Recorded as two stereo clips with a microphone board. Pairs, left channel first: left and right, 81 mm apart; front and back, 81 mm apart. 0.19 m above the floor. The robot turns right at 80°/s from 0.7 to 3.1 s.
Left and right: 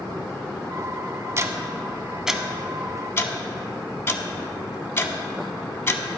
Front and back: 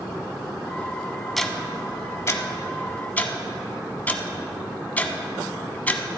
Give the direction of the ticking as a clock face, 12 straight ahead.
3 o'clock.